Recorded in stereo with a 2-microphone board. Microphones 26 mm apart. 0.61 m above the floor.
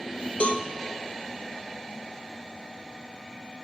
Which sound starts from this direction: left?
A cowbell, at 0.4 s.